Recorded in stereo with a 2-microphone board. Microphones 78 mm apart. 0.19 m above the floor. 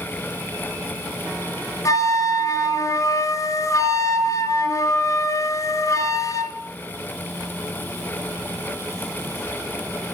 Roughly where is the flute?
Left.